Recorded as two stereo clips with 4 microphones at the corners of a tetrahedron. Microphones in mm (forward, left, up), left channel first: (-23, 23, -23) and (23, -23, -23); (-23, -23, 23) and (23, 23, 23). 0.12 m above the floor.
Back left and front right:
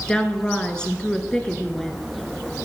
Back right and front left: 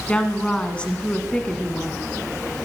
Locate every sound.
0.1 s a woman speaking: 175° right, 1.1 m